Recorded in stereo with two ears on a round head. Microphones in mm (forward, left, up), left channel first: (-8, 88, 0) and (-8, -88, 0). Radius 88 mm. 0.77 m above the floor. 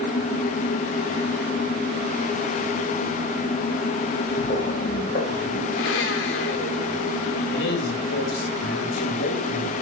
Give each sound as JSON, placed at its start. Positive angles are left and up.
{"t": 4.4, "sound": "footsteps", "side_deg": 40, "distance_m": 8.5}
{"t": 5.7, "sound": "a blender", "side_deg": 70, "distance_m": 2.5}
{"t": 7.5, "sound": "a man speaking", "side_deg": 65, "distance_m": 4.5}